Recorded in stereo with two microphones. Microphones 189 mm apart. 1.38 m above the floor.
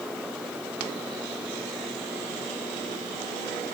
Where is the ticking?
No ticking in this recording.